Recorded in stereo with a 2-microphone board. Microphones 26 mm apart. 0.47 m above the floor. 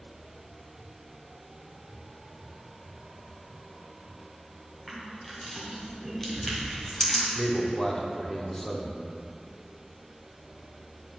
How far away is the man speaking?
About 0.7 m.